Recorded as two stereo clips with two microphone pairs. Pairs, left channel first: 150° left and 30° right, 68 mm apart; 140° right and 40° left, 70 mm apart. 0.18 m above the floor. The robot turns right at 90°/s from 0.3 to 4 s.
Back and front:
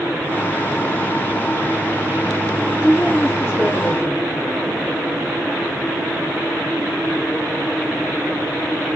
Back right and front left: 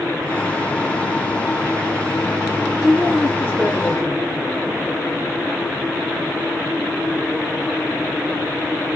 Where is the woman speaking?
115° left, 1.9 m; by 4.2 s 140° right, 1.9 m.